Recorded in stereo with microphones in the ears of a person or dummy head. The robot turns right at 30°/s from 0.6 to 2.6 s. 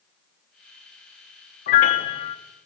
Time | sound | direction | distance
1.7 | a piano | 35° left (ahead or behind) | 0.7 m